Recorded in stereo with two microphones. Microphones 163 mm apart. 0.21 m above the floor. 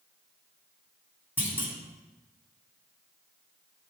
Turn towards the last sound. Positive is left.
turn(degrees=-10)  # may be behind; listen again after turning